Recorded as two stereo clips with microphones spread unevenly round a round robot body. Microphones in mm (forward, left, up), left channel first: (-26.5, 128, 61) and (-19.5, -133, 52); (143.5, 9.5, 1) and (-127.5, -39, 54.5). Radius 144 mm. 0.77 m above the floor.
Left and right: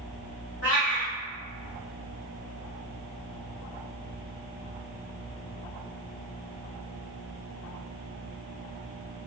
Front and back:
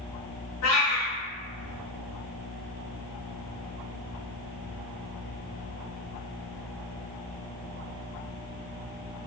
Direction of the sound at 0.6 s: 45° left.